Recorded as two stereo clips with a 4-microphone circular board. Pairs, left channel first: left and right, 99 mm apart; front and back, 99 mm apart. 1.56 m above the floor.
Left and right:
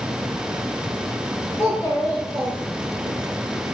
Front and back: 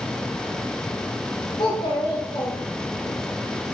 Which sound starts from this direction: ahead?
A child speaking, at 1.6 s.